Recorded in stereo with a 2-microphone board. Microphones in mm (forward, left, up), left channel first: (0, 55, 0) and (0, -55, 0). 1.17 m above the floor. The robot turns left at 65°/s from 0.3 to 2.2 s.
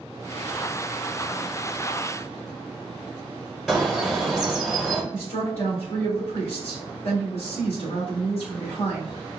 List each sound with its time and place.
3.7 s a bird: 5° right (ahead or behind), 1.0 m
5.1 s a woman speaking: 65° left (ahead or behind), 2 m